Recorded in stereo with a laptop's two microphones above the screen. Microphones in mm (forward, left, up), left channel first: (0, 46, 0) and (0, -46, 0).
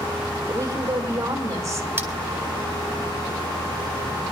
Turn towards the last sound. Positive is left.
turn(degrees=-25)  # may be behind; listen again after turning